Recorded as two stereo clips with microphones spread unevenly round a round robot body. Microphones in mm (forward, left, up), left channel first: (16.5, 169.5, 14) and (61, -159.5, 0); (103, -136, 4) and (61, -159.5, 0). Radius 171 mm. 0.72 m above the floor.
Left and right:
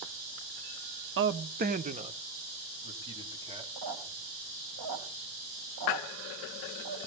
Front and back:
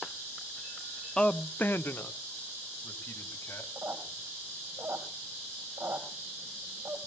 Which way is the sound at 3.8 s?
115° right.